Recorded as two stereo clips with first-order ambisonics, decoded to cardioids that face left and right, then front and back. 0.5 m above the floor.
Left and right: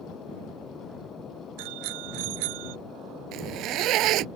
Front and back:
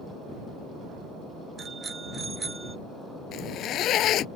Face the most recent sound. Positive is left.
turn(degrees=-50)